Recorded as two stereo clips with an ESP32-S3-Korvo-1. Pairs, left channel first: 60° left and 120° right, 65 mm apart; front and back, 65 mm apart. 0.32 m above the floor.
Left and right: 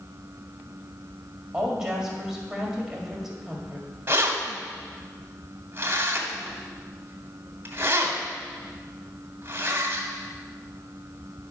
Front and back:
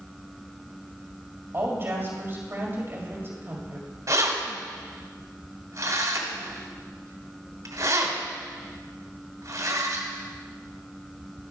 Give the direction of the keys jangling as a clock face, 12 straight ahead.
6 o'clock.